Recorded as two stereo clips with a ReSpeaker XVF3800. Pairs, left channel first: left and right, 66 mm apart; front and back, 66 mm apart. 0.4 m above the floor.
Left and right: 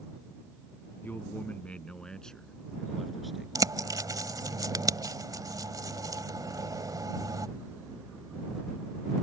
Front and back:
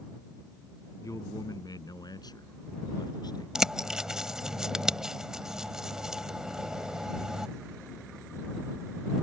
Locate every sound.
1.0 s a man speaking: 30° left; by 3.5 s straight ahead
3.5 s a bird: 100° right